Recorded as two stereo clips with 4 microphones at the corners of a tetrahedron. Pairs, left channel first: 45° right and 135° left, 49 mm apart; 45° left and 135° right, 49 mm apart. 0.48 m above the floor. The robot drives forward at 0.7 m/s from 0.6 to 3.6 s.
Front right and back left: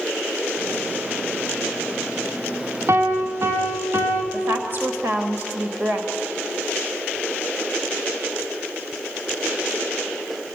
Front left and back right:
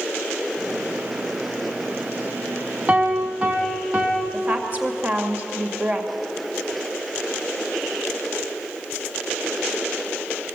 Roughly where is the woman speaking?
Behind.